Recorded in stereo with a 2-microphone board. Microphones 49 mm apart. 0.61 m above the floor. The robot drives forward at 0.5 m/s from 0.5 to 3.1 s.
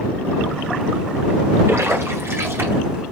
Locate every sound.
1.7 s a splash: 70° right (ahead or behind), 2.5 m; by 3.0 s 55° right (ahead or behind), 2.5 m